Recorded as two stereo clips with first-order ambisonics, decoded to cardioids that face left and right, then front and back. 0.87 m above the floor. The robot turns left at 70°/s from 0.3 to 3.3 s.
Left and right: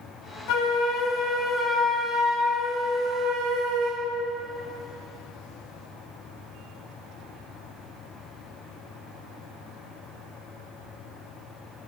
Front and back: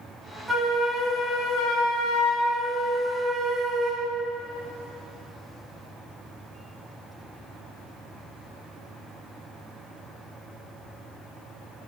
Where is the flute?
100° left, 1.1 m; by 4.1 s 100° right, 1.1 m.